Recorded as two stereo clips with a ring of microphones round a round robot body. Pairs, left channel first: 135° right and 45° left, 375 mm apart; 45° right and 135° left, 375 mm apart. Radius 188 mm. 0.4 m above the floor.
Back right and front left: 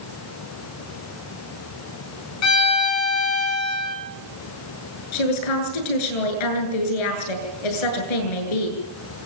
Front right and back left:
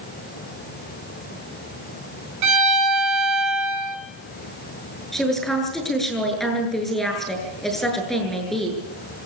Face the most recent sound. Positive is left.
turn(degrees=-135)